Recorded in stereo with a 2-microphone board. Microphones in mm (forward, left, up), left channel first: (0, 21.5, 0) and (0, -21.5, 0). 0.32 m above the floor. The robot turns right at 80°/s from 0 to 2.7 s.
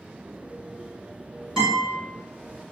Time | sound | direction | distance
1.6 | a guitar | 15° right (ahead or behind) | 1.7 m